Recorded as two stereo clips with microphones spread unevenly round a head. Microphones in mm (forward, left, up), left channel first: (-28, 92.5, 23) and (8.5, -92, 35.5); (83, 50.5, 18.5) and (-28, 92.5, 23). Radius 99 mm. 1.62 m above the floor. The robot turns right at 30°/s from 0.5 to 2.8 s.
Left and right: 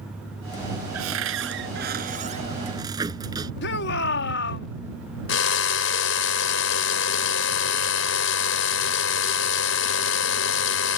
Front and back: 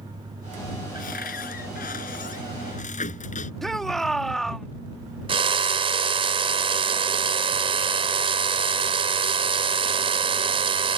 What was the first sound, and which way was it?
A cupboard door, 65° right.